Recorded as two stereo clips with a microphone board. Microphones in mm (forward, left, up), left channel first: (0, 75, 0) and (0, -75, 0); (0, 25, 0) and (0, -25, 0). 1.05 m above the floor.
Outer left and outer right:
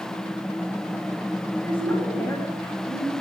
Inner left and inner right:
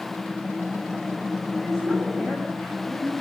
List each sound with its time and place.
1.6 s a woman speaking: 10° left (ahead or behind), 7 m